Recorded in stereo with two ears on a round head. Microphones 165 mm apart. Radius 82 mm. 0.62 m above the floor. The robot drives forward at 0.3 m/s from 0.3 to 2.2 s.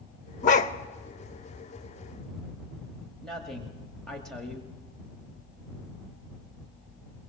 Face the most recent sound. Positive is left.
turn(degrees=5)  # may be behind; listen again after turning